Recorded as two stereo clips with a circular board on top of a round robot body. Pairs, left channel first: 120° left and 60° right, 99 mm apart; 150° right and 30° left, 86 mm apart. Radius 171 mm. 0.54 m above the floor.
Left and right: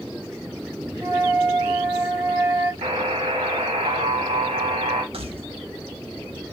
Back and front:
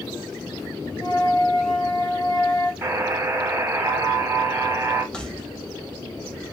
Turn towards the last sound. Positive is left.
turn(degrees=-70)